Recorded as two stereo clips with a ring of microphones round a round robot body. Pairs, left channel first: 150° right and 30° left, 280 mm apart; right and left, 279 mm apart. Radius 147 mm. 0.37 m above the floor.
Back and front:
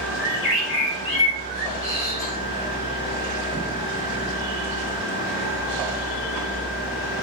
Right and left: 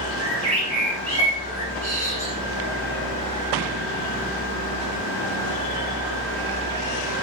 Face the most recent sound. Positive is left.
turn(degrees=160)